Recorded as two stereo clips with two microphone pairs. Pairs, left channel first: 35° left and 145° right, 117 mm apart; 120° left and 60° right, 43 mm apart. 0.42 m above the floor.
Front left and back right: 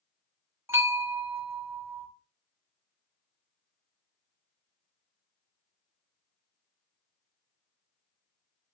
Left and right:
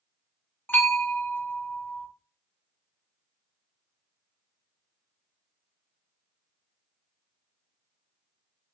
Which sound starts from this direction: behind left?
A bell, at 0.7 s.